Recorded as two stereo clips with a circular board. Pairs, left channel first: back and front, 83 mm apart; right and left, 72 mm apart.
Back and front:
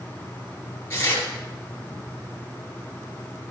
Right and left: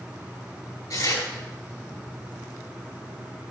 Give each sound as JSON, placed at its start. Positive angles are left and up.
{"t": 0.9, "sound": "tearing paper", "azimuth_deg": -115, "distance_m": 4.0}